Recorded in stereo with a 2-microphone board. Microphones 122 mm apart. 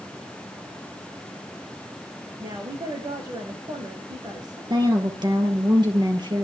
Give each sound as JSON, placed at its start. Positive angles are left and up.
{"t": 2.4, "sound": "a woman speaking", "side_deg": -35, "distance_m": 6.5}
{"t": 4.7, "sound": "a woman speaking", "side_deg": -35, "distance_m": 4.0}